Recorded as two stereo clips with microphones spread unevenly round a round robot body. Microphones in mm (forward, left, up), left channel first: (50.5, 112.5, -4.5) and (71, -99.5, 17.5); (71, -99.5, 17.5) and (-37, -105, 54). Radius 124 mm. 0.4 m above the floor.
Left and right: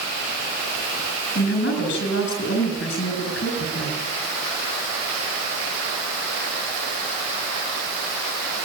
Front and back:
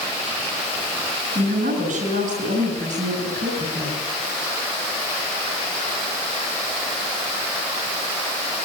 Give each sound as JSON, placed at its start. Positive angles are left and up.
{"t": 1.4, "sound": "a woman speaking", "azimuth_deg": 145, "distance_m": 6.5}